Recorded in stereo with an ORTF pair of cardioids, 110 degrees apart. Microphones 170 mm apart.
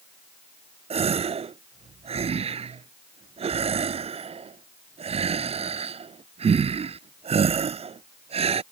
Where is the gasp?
40° right.